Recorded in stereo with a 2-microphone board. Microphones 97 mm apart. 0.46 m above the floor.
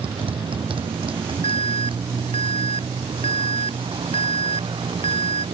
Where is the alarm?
65° left (ahead or behind).